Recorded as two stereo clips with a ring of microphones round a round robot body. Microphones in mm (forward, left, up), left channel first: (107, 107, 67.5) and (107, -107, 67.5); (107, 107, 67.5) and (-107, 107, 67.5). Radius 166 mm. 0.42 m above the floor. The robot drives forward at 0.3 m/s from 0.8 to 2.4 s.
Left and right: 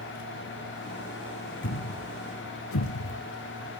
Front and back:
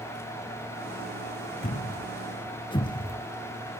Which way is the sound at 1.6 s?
55° left.